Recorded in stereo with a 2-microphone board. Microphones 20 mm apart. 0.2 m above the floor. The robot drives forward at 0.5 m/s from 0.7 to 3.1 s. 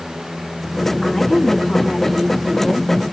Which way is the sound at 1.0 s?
40° left (ahead or behind).